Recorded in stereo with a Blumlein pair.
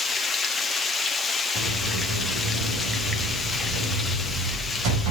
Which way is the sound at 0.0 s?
10° left.